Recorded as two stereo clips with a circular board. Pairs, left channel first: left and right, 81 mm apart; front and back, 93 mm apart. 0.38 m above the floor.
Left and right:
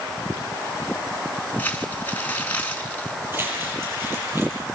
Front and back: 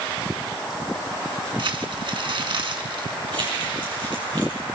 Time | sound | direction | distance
1.6 | crumpling | 155° left | 2.5 m
3.3 | crumpling | 150° right | 10 m